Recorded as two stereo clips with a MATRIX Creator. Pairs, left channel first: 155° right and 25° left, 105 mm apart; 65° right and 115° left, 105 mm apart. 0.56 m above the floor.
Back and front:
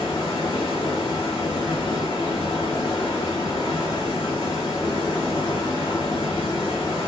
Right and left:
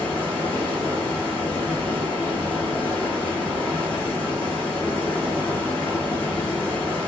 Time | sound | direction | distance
0.0 | running water | 140° right | 1.4 m